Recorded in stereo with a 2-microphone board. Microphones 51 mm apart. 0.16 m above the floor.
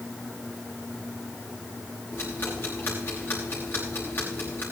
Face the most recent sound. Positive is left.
turn(degrees=45)  # may be behind; listen again after turning